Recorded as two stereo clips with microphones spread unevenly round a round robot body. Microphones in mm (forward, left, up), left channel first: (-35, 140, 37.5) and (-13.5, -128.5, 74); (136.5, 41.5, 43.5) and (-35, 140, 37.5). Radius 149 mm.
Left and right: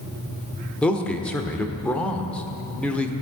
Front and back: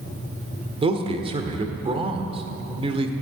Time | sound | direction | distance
0.8 | a man speaking | 160° left | 1.5 m